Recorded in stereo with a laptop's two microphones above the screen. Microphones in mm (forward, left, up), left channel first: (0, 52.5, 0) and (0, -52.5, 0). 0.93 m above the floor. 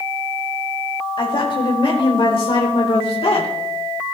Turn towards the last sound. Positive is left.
turn(degrees=65)  # may be behind; listen again after turning